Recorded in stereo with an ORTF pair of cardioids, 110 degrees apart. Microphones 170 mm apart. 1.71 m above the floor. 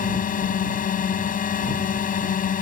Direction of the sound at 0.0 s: 50° left.